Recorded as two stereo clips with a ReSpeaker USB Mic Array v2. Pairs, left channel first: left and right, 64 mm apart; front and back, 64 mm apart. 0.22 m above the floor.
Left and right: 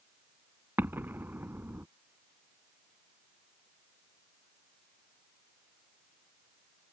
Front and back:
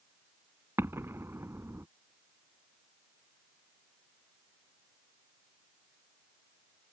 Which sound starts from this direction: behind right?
An explosion, at 0.8 s.